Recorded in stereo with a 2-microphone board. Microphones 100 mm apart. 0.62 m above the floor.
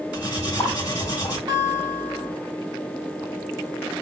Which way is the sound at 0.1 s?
45° left (ahead or behind).